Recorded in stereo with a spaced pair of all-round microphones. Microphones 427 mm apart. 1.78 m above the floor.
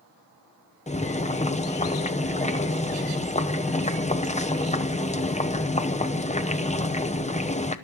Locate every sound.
0.9 s boiling: 15° left (ahead or behind), 0.7 m